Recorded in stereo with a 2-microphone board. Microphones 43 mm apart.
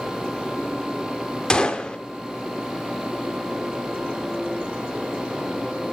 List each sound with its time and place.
1.5 s a gunshot: 20° left (ahead or behind), 0.7 m